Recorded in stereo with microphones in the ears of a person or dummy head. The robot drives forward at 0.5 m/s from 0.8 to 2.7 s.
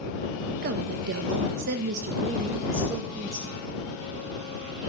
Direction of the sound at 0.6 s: 50° right (ahead or behind).